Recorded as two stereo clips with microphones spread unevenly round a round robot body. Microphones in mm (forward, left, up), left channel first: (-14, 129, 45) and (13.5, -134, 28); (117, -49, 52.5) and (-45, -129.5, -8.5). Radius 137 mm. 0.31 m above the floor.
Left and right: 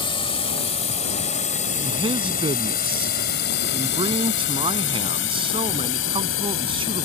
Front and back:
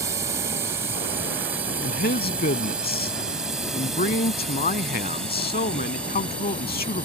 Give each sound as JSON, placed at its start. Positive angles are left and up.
{"t": 0.0, "sound": "a drone", "azimuth_deg": 165}
{"t": 1.8, "sound": "a man speaking", "azimuth_deg": -15}